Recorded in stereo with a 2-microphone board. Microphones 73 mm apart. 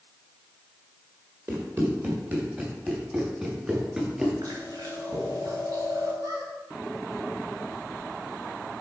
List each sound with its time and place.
1.5 s running footsteps: 30° right (ahead or behind), 3.5 m; by 4.3 s 10° right (ahead or behind), 4.5 m
4.4 s chewing: 60° right (ahead or behind), 3.5 m
6.2 s a squeak: 60° right (ahead or behind), 2 m